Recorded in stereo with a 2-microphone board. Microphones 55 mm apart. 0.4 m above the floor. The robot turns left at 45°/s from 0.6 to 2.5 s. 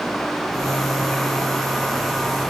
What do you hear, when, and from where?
Only background noise.